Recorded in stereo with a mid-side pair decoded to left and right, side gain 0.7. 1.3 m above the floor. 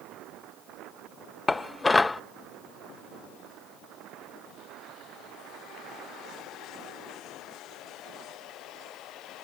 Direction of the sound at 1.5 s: 15° left.